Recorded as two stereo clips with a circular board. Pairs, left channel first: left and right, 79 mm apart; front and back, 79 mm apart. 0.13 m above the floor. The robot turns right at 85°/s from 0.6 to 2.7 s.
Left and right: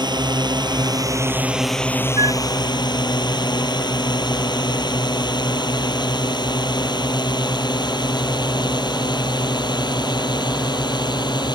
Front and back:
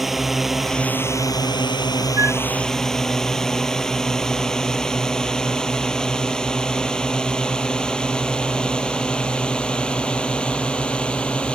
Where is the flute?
125° right; by 2.4 s 105° right.